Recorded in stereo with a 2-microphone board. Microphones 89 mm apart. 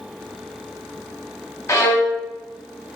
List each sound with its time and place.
1.7 s a violin: 30° left (ahead or behind), 0.8 m